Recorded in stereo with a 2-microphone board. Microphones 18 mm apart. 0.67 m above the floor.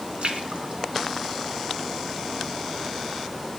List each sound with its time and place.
0.2 s a splash: 65° right (ahead or behind), 2 m